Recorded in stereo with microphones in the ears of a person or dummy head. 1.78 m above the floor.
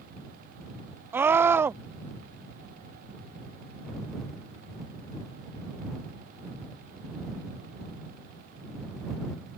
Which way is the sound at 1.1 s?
10° right (ahead or behind).